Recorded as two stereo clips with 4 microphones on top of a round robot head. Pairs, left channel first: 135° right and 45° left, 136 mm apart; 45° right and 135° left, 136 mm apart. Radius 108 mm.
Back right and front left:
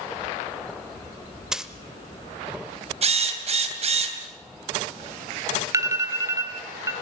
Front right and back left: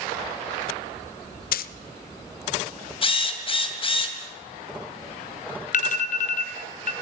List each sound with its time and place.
1.5 s a dropped coin: 40° right, 0.5 m
3.0 s a drill: 5° left, 2.5 m
5.7 s an alarm: 20° right, 2.5 m